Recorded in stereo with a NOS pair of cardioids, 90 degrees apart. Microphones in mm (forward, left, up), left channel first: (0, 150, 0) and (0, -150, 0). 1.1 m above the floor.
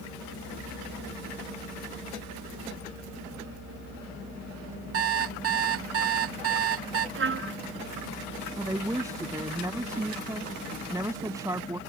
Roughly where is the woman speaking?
Ahead.